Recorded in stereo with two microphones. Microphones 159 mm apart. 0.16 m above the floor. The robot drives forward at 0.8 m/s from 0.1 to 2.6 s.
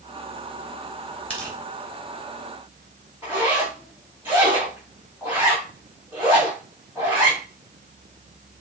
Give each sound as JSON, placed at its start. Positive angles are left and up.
{"t": 1.3, "sound": "tearing paper", "side_deg": 10, "distance_m": 1.9}
{"t": 3.2, "sound": "a zipper", "side_deg": -10, "distance_m": 3.5}